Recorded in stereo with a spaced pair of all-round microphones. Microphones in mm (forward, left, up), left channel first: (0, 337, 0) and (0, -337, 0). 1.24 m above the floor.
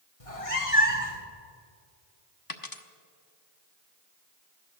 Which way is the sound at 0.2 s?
55° left (ahead or behind).